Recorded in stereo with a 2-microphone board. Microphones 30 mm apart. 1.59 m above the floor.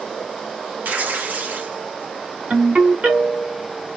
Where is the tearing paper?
65° right (ahead or behind), 0.8 m.